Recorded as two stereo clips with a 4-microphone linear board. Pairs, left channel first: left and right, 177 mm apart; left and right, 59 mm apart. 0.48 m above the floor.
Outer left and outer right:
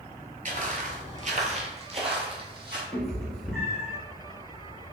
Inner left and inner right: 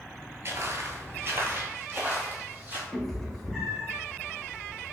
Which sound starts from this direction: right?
Footsteps, at 0.5 s.